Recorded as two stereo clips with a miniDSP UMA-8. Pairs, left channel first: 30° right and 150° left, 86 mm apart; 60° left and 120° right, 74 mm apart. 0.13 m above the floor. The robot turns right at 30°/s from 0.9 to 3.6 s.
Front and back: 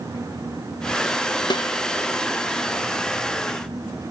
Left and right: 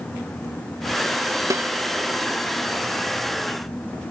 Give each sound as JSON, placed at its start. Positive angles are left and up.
{"t": 1.5, "sound": "a snare drum", "azimuth_deg": -70}